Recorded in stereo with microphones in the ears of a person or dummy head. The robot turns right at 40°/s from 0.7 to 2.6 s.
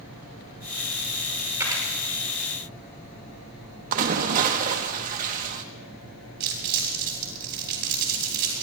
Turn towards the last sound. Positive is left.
turn(degrees=-60)  # may be behind; listen again after turning